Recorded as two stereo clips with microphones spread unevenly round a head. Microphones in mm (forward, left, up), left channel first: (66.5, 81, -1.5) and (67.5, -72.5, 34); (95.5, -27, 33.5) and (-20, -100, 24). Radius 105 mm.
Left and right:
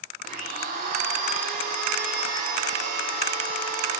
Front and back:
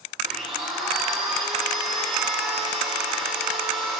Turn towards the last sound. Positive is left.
turn(degrees=-55)